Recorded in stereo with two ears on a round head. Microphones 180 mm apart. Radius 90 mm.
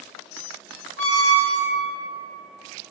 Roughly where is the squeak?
Left.